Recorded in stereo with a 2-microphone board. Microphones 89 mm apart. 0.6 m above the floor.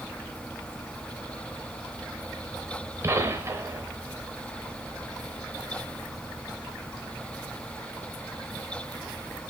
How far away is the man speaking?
I don't hear a man speaking.